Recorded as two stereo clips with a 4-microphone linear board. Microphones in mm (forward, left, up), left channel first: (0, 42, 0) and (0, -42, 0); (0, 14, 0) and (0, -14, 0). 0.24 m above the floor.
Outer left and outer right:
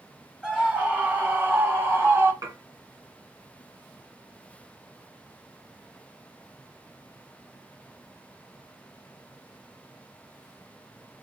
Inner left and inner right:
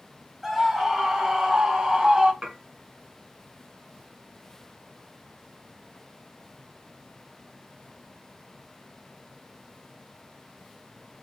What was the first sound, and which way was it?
A scream, 10° right (ahead or behind).